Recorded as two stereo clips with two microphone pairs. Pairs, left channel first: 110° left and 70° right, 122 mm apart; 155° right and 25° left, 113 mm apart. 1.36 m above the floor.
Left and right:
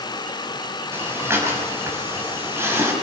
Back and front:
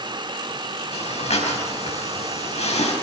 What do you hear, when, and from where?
0.9 s breathing: 140° right, 5.5 m